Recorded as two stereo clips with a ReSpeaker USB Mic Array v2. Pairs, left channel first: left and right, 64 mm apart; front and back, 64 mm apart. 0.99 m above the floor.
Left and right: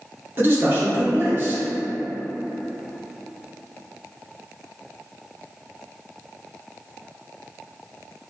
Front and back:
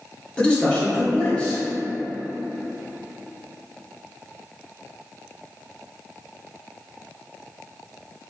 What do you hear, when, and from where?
0.4 s a man speaking: 65° right, 0.9 m